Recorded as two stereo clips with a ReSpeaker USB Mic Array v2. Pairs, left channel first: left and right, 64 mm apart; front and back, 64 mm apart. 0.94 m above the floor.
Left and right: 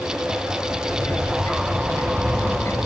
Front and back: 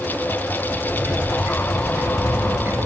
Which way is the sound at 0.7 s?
130° left.